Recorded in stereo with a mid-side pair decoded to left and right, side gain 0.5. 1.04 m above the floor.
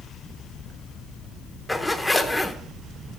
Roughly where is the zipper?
Ahead.